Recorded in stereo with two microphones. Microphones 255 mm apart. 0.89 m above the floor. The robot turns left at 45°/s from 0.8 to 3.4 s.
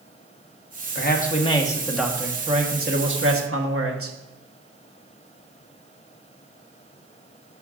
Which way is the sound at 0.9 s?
45° left.